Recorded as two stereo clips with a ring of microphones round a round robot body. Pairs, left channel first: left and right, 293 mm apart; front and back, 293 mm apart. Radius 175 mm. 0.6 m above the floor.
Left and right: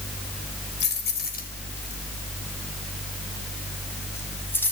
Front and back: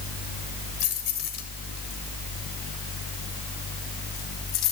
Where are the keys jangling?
35° left, 2.5 m; by 4.7 s 5° left, 4 m.